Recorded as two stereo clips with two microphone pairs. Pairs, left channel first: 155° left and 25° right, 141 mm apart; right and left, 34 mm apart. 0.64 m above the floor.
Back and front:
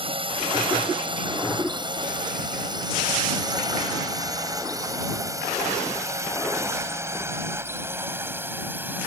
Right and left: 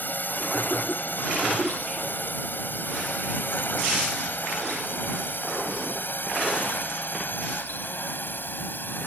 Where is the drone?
70° right; by 9.1 s 100° right.